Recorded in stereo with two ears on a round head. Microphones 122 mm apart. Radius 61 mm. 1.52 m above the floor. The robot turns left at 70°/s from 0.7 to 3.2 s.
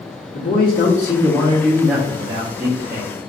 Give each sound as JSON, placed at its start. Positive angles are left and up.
{"t": 0.3, "sound": "a man speaking", "azimuth_deg": 85, "distance_m": 1.0}